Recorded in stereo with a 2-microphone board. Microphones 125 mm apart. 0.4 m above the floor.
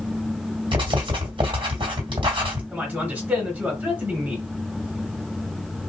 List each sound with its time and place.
0.7 s writing: 45° right (ahead or behind), 1.9 m
2.7 s a man speaking: 15° right (ahead or behind), 1.5 m